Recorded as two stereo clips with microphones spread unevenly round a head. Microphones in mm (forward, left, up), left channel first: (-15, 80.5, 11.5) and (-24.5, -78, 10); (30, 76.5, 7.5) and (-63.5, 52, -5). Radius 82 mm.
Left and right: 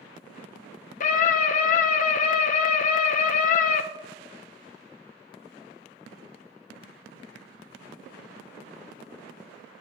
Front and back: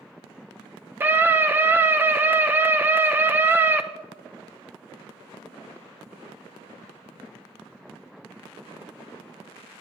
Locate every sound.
1.0 s a scream: 125° left, 0.5 m